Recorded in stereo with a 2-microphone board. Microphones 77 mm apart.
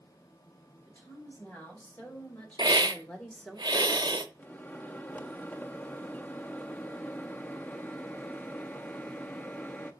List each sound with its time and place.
0.9 s a woman speaking: 20° left (ahead or behind), 4.5 m; by 3.6 s 5° left (ahead or behind), 1.1 m
2.6 s a hiss: 75° right (ahead or behind), 0.6 m
4.4 s a microwave: 20° left (ahead or behind), 0.6 m